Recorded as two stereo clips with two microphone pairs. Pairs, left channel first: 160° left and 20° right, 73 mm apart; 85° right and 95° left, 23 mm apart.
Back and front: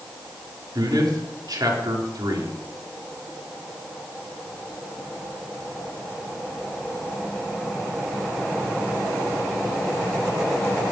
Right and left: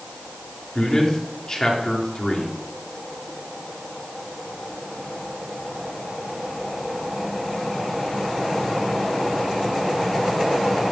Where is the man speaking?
40° right, 4 m.